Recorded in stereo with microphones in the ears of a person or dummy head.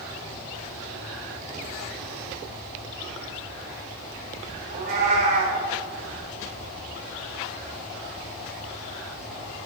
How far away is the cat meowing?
About 1.1 m.